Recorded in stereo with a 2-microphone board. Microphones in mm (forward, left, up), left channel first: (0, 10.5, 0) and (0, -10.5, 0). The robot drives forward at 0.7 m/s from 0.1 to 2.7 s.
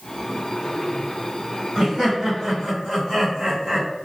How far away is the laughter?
About 2.0 m.